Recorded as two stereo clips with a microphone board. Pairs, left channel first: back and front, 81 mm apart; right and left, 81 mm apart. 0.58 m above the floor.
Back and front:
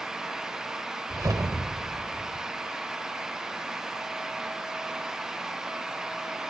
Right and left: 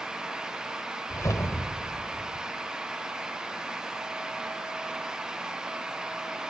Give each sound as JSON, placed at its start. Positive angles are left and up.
{"t": 1.1, "sound": "a whoosh", "azimuth_deg": -40, "distance_m": 1.4}